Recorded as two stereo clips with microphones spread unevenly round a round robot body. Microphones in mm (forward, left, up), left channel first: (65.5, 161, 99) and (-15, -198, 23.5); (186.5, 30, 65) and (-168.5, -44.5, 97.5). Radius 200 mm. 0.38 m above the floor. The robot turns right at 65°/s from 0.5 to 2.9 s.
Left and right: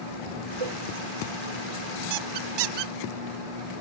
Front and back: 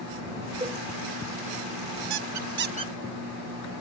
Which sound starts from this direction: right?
A cowbell, at 0.6 s.